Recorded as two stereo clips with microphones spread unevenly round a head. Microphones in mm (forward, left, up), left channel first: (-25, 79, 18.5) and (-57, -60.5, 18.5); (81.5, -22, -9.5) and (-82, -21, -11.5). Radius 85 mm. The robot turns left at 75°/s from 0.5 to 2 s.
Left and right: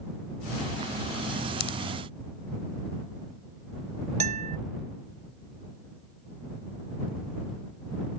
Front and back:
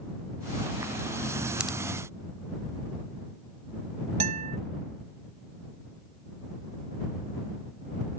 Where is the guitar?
135° right.